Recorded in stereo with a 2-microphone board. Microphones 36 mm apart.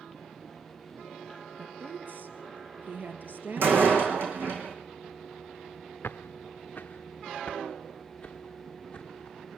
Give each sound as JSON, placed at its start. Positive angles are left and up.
{"t": 1.6, "sound": "a woman speaking", "side_deg": -55, "distance_m": 2.5}
{"t": 3.6, "sound": "a door slam", "side_deg": -80, "distance_m": 3.5}
{"t": 6.0, "sound": "footsteps", "side_deg": 80, "distance_m": 0.6}